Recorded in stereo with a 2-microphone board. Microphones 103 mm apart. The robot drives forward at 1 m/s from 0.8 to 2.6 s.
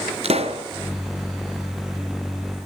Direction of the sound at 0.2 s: 80° right.